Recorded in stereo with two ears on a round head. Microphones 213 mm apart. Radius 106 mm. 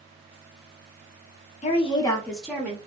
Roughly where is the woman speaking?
Left.